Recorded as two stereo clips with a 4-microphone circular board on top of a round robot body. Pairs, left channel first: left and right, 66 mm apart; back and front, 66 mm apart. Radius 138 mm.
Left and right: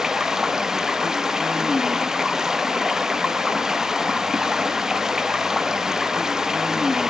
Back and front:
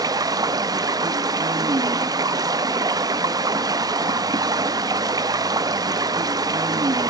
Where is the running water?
10° right, 1.0 m.